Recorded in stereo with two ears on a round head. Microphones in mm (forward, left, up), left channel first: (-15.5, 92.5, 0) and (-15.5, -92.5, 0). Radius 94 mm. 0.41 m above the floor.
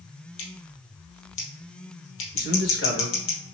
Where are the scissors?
75° left (ahead or behind), 2 m.